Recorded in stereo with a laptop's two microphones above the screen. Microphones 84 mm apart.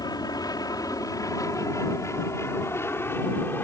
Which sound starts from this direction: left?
An aircraft, at 0.0 s.